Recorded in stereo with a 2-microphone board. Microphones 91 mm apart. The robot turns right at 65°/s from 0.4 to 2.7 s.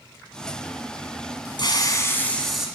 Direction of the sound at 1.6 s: 120° left.